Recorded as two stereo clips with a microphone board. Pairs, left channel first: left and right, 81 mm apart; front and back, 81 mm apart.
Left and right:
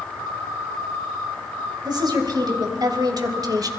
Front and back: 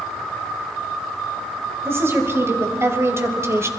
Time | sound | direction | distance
1.9 | a woman speaking | 120° right | 3.5 m